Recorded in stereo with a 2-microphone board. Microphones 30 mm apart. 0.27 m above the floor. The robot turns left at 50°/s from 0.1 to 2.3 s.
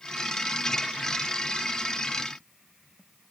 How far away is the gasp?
I don't hear a gasp.